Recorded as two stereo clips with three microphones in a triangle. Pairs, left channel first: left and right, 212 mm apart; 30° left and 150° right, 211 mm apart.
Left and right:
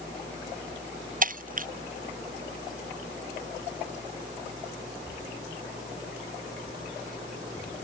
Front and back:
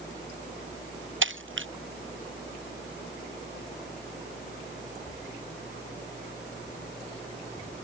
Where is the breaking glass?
135° right.